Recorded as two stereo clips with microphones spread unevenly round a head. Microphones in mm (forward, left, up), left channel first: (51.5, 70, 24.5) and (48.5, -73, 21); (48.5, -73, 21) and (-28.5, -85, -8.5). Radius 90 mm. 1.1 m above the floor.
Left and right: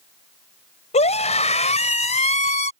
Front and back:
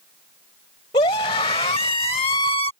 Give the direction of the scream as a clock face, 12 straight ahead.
10 o'clock.